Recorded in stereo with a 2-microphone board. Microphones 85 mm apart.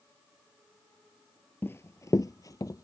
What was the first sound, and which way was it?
Running footsteps, 25° left (ahead or behind).